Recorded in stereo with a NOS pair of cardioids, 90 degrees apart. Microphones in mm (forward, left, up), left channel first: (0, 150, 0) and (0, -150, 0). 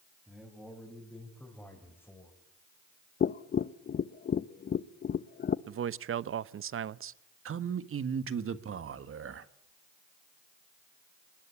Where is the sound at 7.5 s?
45° right, 1.6 m.